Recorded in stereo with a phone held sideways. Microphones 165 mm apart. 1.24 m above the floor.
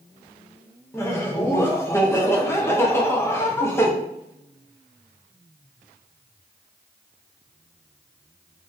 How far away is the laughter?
About 0.5 m.